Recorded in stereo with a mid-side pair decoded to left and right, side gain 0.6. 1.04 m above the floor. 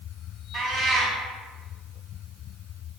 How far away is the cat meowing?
About 1.4 m.